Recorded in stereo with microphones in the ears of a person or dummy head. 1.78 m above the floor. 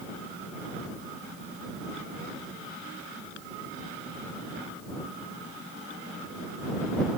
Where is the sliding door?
I don't hear a sliding door.